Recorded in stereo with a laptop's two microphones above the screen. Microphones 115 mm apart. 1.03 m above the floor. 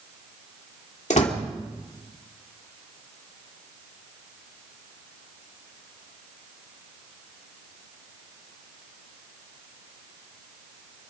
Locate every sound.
1.1 s a door slam: 85° left, 2 m